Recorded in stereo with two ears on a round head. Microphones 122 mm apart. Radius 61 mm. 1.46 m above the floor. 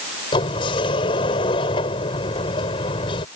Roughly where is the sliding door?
Left.